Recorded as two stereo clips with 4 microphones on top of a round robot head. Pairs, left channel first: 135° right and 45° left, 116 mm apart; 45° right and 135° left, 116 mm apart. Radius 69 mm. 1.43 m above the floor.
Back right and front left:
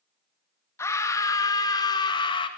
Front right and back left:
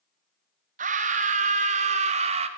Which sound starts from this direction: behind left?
A scream, at 0.8 s.